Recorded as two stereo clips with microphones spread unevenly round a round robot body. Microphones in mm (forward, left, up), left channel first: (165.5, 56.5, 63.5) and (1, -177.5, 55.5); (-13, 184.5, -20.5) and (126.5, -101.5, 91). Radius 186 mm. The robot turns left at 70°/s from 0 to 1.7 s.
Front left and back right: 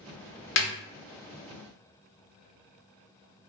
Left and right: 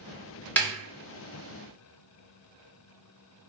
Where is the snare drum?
20° left, 0.5 m; by 0.7 s 10° left, 0.5 m.